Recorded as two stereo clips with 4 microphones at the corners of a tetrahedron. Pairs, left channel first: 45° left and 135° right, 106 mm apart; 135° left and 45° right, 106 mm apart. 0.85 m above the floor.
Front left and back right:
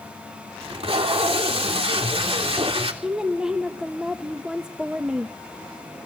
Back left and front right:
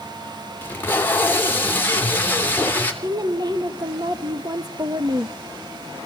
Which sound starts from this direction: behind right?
Tape being pulled, at 0.6 s.